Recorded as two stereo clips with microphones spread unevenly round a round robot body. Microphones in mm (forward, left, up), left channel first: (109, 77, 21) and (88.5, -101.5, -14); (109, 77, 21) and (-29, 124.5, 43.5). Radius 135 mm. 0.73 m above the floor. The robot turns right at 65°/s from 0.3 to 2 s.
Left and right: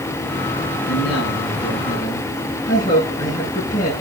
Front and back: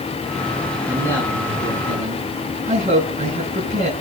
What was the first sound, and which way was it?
A man speaking, 75° left.